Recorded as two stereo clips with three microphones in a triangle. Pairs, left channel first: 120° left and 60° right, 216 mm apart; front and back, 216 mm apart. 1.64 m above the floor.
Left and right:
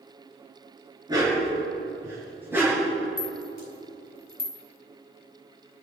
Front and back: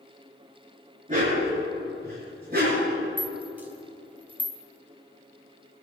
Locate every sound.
1.1 s a dog barking: 130° right, 6 m; by 2.9 s 140° right, 6 m
3.2 s a rattle: 100° left, 2.0 m